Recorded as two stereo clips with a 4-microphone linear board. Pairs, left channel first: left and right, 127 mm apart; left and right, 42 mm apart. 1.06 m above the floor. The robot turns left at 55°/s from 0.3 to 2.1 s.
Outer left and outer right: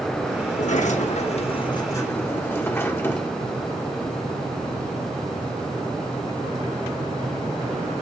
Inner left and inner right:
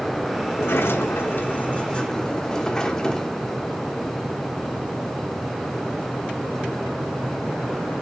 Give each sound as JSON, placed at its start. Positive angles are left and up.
{"t": 0.5, "sound": "a sliding door", "azimuth_deg": 110, "distance_m": 1.2}